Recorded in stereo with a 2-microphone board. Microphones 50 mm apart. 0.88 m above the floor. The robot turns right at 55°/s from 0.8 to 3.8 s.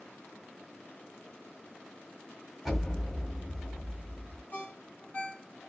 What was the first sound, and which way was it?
An explosion, 5° right.